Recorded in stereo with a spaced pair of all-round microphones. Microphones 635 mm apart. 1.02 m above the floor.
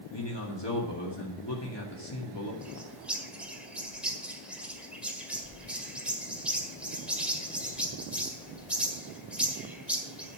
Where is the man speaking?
40° left (ahead or behind), 2 m.